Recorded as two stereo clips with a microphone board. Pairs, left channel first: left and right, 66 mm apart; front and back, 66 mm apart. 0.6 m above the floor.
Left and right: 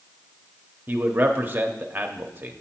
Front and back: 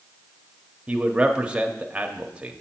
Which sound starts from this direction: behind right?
A man speaking, at 0.9 s.